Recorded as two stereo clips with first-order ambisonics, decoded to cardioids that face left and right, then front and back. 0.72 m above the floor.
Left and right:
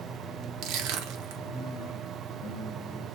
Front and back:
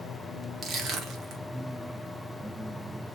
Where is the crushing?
120° right, 0.8 m.